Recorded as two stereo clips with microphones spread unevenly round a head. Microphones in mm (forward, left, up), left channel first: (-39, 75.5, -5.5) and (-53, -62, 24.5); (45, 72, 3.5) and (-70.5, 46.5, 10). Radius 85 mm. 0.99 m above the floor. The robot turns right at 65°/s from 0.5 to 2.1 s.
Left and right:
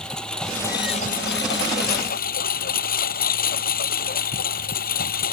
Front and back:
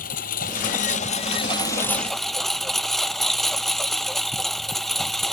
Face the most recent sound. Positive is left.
turn(degrees=100)